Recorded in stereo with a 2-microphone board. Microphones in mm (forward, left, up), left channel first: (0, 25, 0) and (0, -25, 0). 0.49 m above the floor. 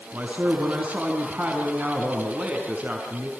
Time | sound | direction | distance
0.1 | a man speaking | 25° right (ahead or behind) | 4.5 m